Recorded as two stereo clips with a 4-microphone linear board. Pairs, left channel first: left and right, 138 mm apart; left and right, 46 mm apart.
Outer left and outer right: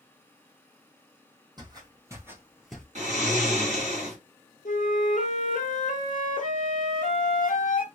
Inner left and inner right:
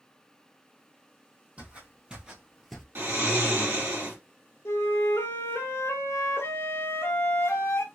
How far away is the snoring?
About 1.9 m.